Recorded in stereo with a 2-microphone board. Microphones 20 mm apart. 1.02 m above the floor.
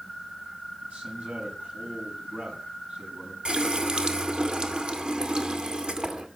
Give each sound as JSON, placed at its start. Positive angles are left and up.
{"t": 0.8, "sound": "a man speaking", "side_deg": -75, "distance_m": 8.0}
{"t": 3.5, "sound": "a running tap", "side_deg": -40, "distance_m": 1.9}